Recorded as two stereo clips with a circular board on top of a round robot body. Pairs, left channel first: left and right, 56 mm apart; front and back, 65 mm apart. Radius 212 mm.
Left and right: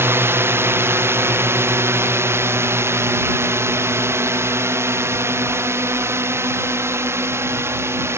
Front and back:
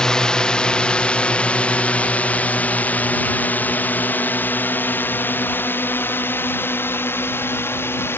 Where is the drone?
75° right; by 8.2 s 50° right.